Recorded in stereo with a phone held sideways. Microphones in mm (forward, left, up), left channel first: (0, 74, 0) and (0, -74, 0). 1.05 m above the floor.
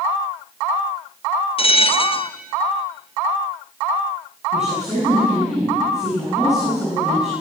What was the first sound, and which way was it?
A bell, 40° left (ahead or behind).